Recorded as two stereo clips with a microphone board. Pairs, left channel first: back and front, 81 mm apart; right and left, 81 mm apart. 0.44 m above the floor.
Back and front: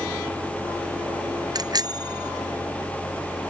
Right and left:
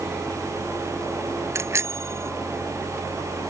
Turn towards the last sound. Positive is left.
turn(degrees=35)